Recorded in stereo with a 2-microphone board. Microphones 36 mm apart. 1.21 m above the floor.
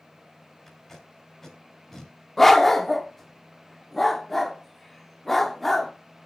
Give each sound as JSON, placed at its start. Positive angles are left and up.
{"t": 0.7, "sound": "tape being pulled", "side_deg": 10, "distance_m": 2.5}
{"t": 2.4, "sound": "a dog barking", "side_deg": 10, "distance_m": 0.8}